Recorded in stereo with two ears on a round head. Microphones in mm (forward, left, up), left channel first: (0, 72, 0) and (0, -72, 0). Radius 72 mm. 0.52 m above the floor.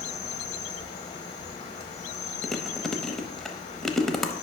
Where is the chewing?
5° left (ahead or behind), 0.6 m.